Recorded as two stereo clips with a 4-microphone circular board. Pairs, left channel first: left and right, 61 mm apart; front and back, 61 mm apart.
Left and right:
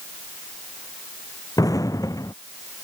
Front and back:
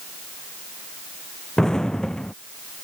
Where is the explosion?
80° left.